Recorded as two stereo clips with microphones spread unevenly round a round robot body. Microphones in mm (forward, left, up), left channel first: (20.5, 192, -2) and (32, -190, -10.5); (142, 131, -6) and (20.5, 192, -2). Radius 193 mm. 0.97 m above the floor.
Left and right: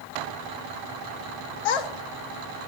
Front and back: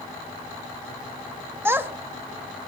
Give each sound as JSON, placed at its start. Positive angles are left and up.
{"t": 1.6, "sound": "a child speaking", "azimuth_deg": 75, "distance_m": 1.3}